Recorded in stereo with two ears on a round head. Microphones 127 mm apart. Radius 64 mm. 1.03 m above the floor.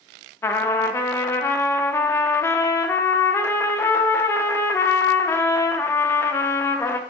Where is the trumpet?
15° left (ahead or behind), 0.8 m.